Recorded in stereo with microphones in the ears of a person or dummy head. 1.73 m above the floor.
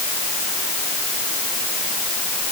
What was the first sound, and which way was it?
Only background noise.